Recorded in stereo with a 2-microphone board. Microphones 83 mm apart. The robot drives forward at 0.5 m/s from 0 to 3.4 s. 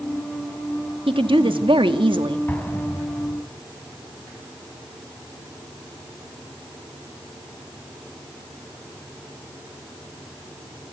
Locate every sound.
1.1 s a woman speaking: 85° right, 1.9 m; by 2.4 s 70° right (ahead or behind), 2.0 m
2.5 s an explosion: 20° left (ahead or behind), 4 m; by 3.4 s 25° left (ahead or behind), 3.5 m